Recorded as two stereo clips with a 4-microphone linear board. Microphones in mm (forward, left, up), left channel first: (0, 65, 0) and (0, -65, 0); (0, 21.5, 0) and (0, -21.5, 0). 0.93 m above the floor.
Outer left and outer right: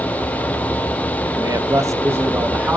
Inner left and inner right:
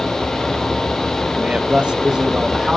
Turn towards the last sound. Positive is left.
turn(degrees=-10)  # may be behind; listen again after turning